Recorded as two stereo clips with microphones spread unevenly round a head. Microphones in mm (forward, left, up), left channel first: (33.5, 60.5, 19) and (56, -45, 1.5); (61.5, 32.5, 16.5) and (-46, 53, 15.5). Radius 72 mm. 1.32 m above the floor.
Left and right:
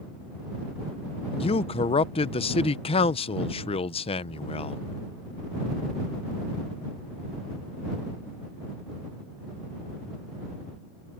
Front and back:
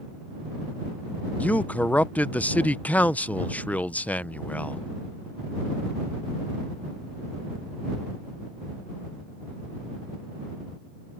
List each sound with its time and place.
1.4 s a man speaking: 65° left